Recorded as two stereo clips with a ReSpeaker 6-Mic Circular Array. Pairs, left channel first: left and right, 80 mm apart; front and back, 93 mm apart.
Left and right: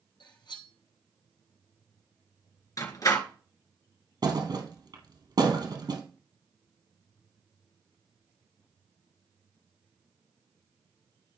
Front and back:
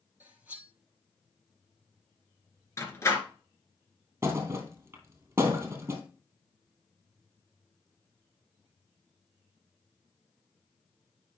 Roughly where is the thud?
Behind right.